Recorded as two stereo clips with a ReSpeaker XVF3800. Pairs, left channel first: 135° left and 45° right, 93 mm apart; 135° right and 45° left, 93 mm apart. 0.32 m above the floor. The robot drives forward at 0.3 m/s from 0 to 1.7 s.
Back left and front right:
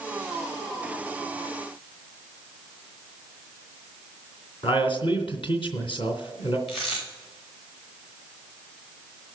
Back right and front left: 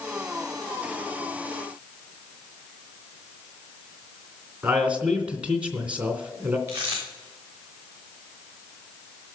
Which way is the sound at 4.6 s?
120° left.